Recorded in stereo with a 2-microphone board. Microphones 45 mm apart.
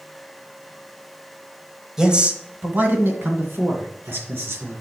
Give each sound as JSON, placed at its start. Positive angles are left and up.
{"t": 2.0, "sound": "a man speaking", "side_deg": -10, "distance_m": 1.0}